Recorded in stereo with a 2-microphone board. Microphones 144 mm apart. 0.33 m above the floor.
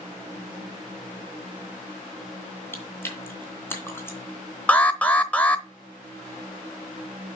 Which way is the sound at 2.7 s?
15° left (ahead or behind).